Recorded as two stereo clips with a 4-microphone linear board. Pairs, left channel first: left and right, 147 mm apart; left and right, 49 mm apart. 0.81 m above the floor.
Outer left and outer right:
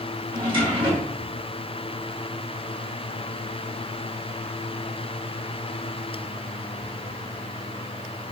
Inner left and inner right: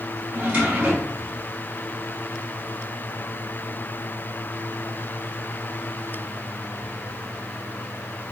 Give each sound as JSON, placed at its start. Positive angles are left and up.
{"t": 0.3, "sound": "a drawer", "side_deg": -35, "distance_m": 5.0}